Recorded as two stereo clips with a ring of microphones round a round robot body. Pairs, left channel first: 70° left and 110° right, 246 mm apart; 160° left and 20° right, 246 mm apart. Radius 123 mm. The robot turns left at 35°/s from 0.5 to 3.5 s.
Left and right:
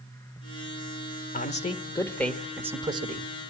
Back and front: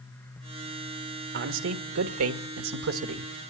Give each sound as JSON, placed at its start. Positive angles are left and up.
{"t": 1.3, "sound": "a man speaking", "azimuth_deg": 15, "distance_m": 1.3}